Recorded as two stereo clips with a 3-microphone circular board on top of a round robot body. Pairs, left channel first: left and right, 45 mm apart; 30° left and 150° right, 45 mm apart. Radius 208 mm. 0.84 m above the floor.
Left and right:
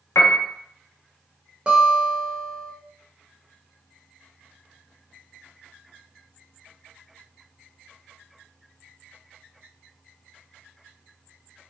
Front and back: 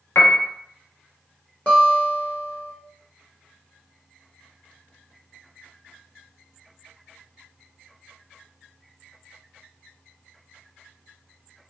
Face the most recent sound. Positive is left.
turn(degrees=-25)